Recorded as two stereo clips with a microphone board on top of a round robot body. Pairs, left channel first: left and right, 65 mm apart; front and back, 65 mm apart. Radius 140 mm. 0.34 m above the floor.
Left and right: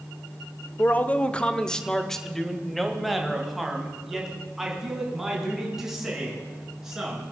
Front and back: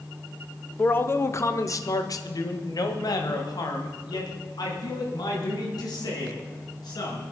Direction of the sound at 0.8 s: 45° left.